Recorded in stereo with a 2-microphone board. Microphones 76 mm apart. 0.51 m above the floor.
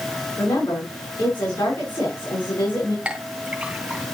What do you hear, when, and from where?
0.4 s a woman speaking: 75° left (ahead or behind), 5.5 m
3.0 s a clink: 15° right (ahead or behind), 2 m